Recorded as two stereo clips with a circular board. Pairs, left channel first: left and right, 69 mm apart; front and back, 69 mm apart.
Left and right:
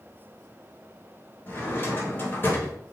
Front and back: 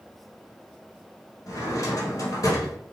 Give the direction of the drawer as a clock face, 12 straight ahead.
11 o'clock.